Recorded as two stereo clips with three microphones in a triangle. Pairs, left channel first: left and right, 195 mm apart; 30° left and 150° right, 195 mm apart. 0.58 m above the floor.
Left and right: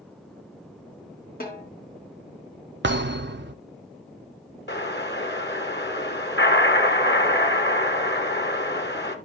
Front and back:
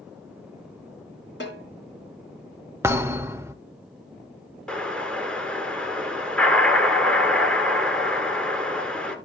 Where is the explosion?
115° left, 1.6 m.